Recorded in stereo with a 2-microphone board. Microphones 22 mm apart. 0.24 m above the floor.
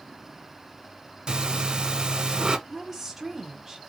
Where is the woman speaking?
5° right (ahead or behind), 1.1 m.